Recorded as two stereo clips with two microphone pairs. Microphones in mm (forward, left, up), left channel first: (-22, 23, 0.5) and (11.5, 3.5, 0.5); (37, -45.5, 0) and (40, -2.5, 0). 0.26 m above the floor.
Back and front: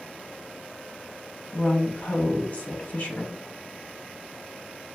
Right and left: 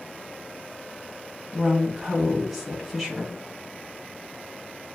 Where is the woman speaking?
Straight behind, 1.6 m.